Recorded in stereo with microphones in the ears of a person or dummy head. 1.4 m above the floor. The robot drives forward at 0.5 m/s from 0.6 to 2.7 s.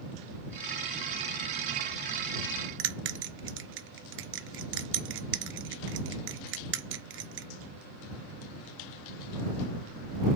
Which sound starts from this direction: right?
A bell, at 2.8 s.